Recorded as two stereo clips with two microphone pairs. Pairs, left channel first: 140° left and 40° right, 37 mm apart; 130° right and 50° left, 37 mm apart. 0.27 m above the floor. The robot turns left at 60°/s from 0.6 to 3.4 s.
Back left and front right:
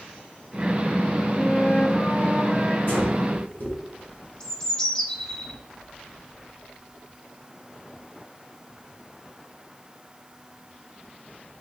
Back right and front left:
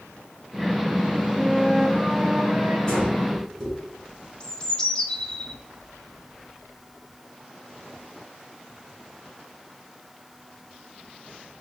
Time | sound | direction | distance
1.4 | a flute | 170° left | 0.8 m
2.9 | breathing | 175° left | 2.5 m
4.4 | a bird | 175° right | 0.8 m